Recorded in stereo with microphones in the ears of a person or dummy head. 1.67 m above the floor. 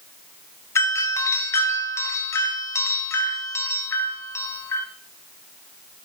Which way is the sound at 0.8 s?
15° left (ahead or behind).